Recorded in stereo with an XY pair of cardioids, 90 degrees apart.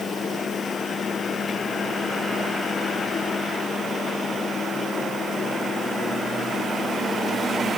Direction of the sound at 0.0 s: 50° left.